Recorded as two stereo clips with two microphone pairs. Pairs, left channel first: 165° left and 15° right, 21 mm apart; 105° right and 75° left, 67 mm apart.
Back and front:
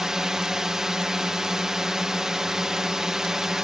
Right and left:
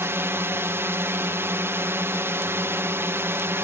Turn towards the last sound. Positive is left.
turn(degrees=45)